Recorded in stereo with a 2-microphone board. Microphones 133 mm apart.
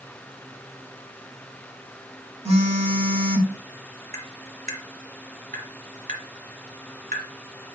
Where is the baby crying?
I don't hear a baby crying.